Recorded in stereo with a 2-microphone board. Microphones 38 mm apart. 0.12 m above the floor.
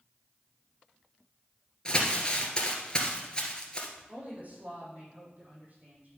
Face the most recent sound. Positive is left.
turn(degrees=-45)  # may be behind; listen again after turning